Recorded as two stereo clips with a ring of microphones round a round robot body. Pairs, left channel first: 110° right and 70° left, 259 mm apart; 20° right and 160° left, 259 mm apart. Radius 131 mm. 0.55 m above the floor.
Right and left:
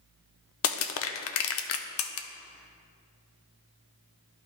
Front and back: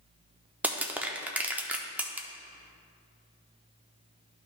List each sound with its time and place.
0.6 s crushing: 120° right, 0.6 m